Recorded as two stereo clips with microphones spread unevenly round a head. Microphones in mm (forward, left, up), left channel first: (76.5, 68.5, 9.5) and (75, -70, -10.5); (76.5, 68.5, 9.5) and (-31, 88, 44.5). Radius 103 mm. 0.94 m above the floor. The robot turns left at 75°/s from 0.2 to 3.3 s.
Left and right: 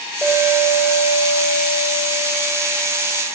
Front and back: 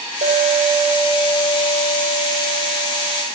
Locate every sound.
0.2 s a clink: 175° left, 3 m; by 3.2 s 50° right, 3 m